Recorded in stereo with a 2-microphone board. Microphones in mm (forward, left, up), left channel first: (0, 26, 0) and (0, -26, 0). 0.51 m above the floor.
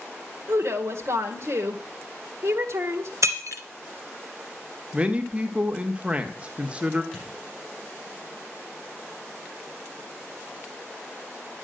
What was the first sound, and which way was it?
A woman speaking, 60° right (ahead or behind).